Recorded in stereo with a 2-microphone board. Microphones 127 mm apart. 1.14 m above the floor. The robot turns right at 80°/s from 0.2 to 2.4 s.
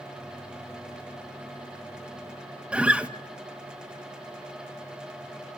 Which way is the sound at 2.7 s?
10° right (ahead or behind).